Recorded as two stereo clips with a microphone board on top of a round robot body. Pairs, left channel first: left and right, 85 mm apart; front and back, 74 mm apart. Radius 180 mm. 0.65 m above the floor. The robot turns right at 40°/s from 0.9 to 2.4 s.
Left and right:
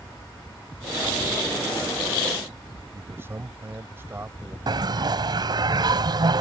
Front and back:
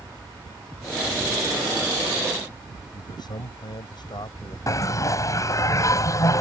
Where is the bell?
45° right.